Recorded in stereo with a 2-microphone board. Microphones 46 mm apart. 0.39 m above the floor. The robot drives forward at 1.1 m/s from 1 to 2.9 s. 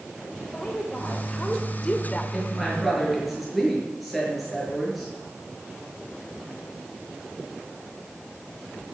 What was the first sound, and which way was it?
A woman speaking, 20° left (ahead or behind).